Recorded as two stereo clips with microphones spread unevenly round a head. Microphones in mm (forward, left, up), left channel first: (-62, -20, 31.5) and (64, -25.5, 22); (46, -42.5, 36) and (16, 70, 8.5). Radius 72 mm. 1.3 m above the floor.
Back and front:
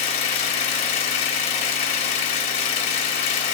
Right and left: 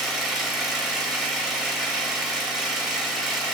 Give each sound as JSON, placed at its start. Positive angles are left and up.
{"t": 0.0, "sound": "an engine running", "azimuth_deg": -155, "distance_m": 1.7}